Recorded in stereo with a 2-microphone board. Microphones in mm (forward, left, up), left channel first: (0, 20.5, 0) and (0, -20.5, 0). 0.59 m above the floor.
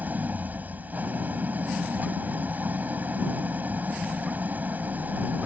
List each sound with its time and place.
0.0 s an engine running: 50° right (ahead or behind)